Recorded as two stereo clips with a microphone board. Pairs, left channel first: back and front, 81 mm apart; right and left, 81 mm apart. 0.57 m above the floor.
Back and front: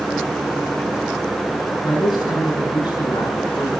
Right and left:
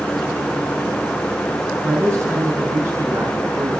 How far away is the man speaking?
About 5 m.